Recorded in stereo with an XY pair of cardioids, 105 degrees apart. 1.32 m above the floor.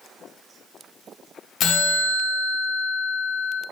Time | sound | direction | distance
1.6 | a bell | 65° left | 0.8 m